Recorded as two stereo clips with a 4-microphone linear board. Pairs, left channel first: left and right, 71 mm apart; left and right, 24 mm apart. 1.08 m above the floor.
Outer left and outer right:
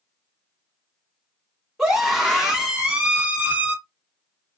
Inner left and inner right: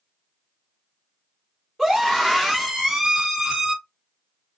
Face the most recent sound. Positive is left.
turn(degrees=-25)  # may be behind; listen again after turning